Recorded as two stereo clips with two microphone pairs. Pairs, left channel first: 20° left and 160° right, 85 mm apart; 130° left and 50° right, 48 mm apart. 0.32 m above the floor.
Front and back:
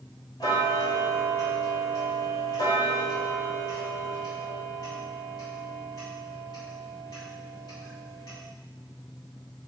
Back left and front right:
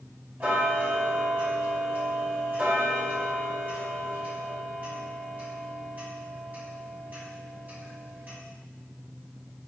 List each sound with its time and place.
0.4 s ticking: 5° right, 2 m